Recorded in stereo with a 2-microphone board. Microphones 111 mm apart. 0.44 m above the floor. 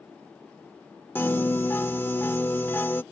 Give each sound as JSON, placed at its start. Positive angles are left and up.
{"t": 1.1, "sound": "a piano", "side_deg": 20}